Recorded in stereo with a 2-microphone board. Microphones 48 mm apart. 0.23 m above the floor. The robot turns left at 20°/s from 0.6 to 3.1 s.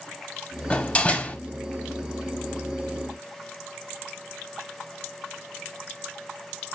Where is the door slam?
30° left (ahead or behind), 0.7 m; by 1.4 s 35° left (ahead or behind), 0.7 m.